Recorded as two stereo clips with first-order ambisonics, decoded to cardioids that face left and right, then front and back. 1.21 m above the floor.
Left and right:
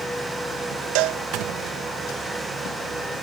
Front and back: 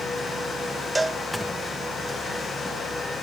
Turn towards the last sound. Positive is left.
turn(degrees=-100)